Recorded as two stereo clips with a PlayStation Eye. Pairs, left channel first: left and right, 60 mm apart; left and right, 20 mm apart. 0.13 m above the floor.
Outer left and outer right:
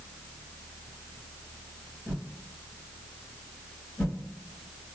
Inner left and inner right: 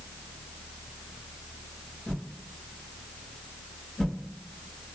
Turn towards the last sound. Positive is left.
turn(degrees=25)  # may be behind; listen again after turning